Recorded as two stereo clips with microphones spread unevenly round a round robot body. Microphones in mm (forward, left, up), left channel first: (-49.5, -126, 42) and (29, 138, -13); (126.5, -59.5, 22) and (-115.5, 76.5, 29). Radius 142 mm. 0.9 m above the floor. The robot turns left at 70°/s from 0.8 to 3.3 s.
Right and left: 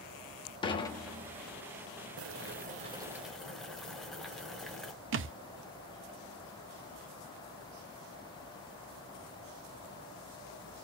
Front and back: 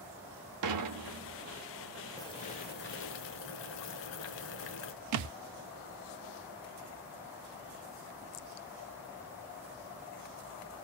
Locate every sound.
0.6 s dishes clattering: 175° left, 1.0 m; by 1.4 s 135° left, 1.0 m
2.2 s boiling: 45° left, 0.8 m; by 4.9 s 35° right, 0.8 m
5.1 s a thud: 125° left, 0.5 m